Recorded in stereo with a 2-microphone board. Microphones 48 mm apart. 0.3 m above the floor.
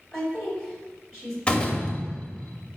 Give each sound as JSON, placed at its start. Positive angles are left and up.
{"t": 0.1, "sound": "a woman speaking", "side_deg": 5, "distance_m": 2.0}
{"t": 1.5, "sound": "a door slam", "side_deg": 20, "distance_m": 0.7}